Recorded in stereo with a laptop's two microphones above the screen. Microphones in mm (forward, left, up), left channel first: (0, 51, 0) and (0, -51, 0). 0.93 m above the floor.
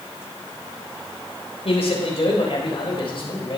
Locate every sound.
1.6 s a man speaking: 70° left (ahead or behind), 4 m; by 3.6 s 55° left (ahead or behind), 4 m